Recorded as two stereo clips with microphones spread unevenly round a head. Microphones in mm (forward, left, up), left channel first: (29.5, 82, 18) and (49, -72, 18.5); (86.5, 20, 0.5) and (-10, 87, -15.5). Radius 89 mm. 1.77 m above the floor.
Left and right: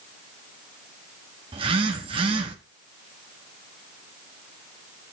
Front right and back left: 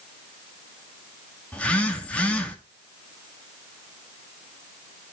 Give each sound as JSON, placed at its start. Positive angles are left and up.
{"t": 1.5, "sound": "a phone buzzing", "azimuth_deg": -90, "distance_m": 1.3}